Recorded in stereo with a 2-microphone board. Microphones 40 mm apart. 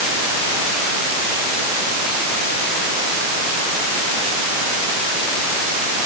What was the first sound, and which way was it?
Only background noise.